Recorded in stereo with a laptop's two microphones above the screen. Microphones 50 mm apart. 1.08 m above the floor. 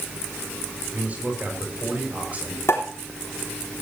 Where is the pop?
60° left (ahead or behind), 3.5 m.